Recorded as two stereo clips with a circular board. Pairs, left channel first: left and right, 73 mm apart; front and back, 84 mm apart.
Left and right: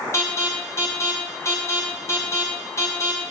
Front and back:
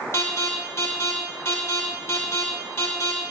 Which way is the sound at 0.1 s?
50° left.